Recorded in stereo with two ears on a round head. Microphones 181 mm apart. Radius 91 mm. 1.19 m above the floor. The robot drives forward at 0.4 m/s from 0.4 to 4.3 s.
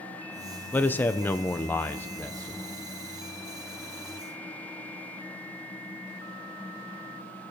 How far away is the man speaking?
About 0.6 m.